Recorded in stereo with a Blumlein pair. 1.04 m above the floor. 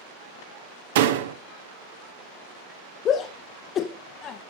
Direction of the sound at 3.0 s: 30° left.